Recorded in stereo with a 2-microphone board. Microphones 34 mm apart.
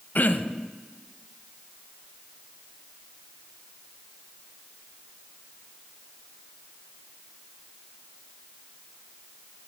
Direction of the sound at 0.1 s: 60° left (ahead or behind).